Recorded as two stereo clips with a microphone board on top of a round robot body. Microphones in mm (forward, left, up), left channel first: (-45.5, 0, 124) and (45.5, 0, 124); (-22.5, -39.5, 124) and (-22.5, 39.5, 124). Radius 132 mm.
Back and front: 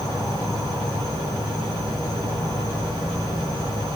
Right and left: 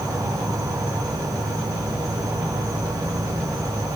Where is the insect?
130° left, 1.0 m.